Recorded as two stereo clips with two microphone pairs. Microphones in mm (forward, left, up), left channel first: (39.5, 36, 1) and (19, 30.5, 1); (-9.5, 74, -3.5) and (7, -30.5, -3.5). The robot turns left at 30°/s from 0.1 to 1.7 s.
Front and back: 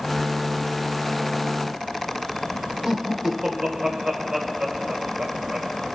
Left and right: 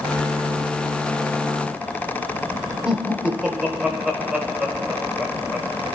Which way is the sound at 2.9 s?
155° right.